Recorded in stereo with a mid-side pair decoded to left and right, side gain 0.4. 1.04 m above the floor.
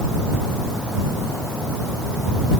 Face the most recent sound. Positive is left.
No sound to turn to.